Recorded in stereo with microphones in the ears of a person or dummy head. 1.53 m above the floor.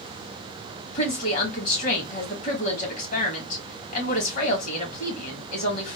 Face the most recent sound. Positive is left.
turn(degrees=50)  # may be behind; listen again after turning